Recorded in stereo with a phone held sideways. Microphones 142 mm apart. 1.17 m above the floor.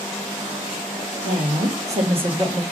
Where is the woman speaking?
65° right (ahead or behind), 1.8 m; by 2.6 s 25° right (ahead or behind), 1.4 m.